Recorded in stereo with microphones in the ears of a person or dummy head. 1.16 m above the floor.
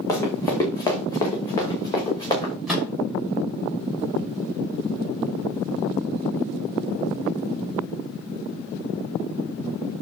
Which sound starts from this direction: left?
Running footsteps, at 0.1 s.